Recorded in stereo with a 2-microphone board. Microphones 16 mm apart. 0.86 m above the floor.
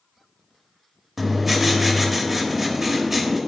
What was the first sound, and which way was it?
Writing, 15° right (ahead or behind).